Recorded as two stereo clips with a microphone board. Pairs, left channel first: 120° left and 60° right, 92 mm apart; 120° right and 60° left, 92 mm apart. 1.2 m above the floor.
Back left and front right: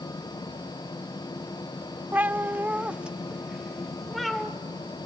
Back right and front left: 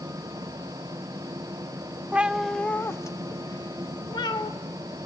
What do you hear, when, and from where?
2.1 s a cat meowing: 5° right, 0.7 m; by 4.5 s 150° right, 1.5 m